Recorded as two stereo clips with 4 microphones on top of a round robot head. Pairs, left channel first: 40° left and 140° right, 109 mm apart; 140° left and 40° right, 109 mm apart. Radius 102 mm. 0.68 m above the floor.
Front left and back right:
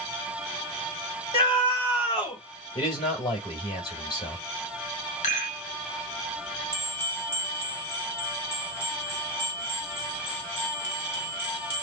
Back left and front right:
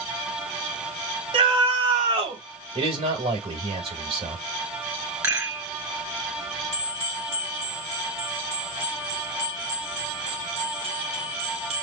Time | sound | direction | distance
1.3 | a scream | 5° right | 5 m
2.8 | a man speaking | 5° right | 4 m
5.2 | a rattle | 25° left | 1.9 m
6.7 | a bell | 30° right | 3 m